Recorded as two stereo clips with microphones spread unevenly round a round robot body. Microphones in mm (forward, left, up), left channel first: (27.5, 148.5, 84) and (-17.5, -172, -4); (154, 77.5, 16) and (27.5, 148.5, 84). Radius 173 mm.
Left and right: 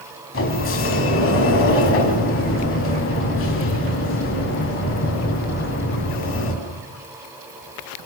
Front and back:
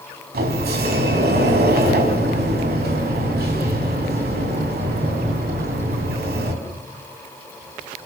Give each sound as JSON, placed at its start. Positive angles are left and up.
{"t": 0.3, "sound": "a sliding door", "azimuth_deg": 140, "distance_m": 4.5}